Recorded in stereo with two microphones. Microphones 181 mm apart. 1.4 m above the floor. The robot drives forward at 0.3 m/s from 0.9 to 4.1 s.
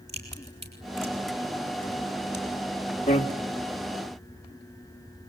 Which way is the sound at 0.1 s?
65° right (ahead or behind).